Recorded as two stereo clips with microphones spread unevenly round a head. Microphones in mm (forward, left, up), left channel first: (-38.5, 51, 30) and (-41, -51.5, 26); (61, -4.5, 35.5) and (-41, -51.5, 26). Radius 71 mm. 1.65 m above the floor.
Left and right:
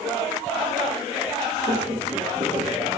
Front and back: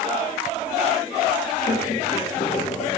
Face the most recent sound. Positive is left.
turn(degrees=-25)